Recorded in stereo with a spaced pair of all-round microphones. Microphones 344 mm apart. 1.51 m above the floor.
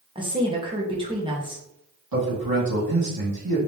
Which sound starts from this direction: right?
A man speaking, at 2.1 s.